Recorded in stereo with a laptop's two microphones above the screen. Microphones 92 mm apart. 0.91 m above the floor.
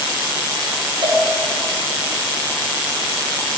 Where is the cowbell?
60° right (ahead or behind), 1.8 m.